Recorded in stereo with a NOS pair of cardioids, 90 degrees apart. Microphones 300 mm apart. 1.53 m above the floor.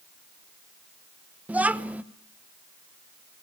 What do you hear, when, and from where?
1.5 s a child speaking: 5° right, 1.1 m